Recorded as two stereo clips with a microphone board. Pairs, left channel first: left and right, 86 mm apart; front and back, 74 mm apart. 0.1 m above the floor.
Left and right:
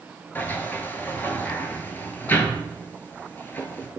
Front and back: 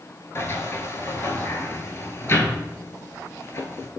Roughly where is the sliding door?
Ahead left.